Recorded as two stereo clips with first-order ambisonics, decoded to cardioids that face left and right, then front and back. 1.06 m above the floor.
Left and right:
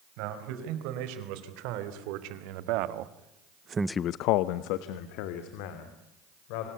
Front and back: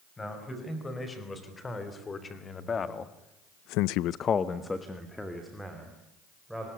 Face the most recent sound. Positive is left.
turn(degrees=90)